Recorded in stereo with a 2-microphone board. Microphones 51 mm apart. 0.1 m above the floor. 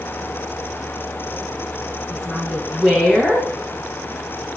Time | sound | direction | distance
2.1 | a woman speaking | centre (ahead or behind) | 9.5 m